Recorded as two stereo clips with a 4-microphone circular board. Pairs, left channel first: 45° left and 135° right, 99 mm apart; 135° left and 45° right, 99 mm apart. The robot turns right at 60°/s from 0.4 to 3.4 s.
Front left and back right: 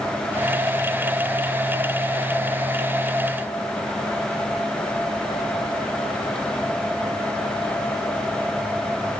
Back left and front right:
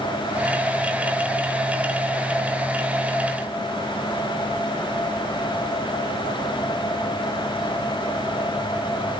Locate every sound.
Only background noise.